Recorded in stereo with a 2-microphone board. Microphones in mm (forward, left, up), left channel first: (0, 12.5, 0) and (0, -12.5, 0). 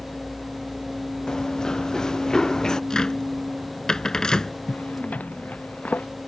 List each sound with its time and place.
1.3 s running footsteps: 25° left (ahead or behind)
2.9 s a cupboard door: 30° left (ahead or behind)
4.7 s a zipper: 80° left